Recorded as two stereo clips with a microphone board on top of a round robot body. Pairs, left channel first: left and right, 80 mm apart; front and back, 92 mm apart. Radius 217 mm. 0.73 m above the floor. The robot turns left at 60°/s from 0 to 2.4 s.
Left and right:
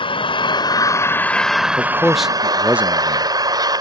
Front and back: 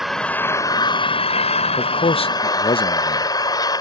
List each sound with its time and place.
0.0 s an engine running: 95° left; by 3.8 s 50° right
1.8 s a man speaking: 25° left; by 3.3 s 15° right